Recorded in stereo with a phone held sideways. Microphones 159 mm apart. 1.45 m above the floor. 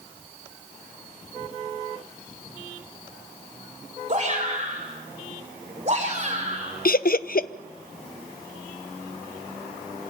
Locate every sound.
4.1 s a shout: 40° right (ahead or behind), 5.5 m
6.8 s laughter: 65° left (ahead or behind), 0.7 m